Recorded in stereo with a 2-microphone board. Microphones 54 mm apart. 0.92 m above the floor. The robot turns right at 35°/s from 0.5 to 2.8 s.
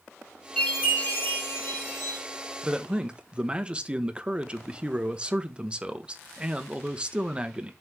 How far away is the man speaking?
About 0.8 m.